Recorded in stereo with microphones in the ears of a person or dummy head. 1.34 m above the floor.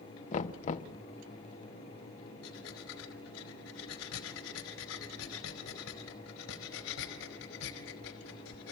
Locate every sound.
0.3 s knocking: 40° left (ahead or behind), 1.1 m
2.4 s breathing: 80° left, 4 m